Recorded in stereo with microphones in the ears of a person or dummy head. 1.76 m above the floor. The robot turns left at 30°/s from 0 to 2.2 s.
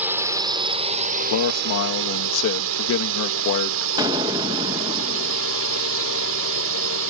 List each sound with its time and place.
0.0 s a drone: 10° right; by 7.1 s 75° right
1.3 s a man speaking: 80° left; by 3.9 s 70° left (ahead or behind)
4.0 s an explosion: 25° right (ahead or behind)